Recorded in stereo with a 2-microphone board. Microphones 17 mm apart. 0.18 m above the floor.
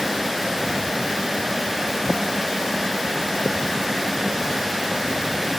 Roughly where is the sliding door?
I don't hear a sliding door.